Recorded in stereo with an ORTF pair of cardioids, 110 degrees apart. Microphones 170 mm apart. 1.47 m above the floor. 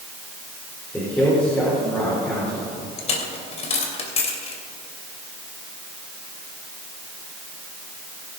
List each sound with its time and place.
0.9 s a man speaking: 10° left, 5 m
3.0 s a dropped coin: 40° left, 3 m